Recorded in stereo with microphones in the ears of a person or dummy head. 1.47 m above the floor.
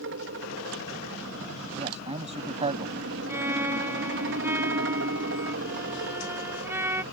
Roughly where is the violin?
Centre.